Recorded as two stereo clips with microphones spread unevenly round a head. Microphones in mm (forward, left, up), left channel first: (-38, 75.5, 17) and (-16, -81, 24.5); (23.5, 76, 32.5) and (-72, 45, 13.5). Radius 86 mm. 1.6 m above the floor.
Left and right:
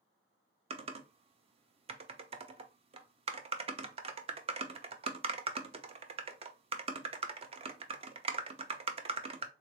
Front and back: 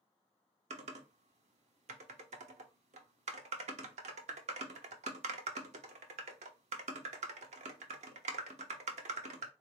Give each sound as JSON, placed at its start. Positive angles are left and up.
{"t": 0.7, "sound": "typing on a keyboard", "azimuth_deg": -135, "distance_m": 0.6}